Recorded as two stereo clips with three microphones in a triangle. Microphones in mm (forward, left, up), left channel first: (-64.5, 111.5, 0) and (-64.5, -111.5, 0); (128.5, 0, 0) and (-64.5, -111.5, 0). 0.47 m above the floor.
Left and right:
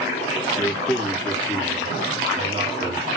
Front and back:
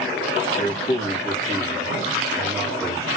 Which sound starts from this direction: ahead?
A man speaking, at 0.6 s.